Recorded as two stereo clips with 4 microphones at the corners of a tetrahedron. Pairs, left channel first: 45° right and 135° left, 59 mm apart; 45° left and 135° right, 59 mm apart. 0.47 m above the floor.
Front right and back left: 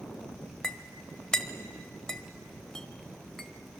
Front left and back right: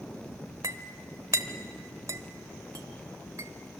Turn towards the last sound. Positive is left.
turn(degrees=-125)